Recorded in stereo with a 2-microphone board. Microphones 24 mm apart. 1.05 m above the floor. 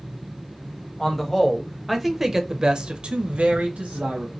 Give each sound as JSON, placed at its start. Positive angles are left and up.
{"t": 1.0, "sound": "a man speaking", "side_deg": 20, "distance_m": 1.1}